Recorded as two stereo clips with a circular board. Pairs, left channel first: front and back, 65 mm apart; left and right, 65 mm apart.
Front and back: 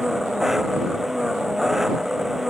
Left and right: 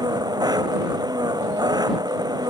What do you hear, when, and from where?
0.0 s an engine running: 95° right